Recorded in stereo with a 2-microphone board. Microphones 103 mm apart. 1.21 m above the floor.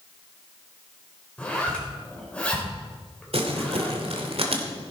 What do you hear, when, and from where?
1.4 s a zipper: 10° left (ahead or behind), 3.5 m
3.3 s crumpling: 70° right (ahead or behind), 2 m